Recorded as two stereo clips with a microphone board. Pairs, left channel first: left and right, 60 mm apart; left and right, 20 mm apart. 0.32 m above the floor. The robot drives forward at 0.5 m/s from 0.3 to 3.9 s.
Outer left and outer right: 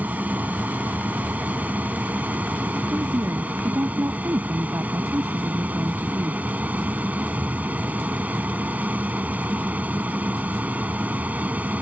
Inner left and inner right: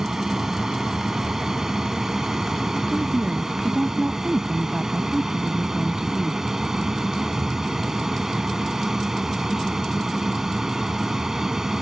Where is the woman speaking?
45° right (ahead or behind); by 6.4 s 55° right (ahead or behind).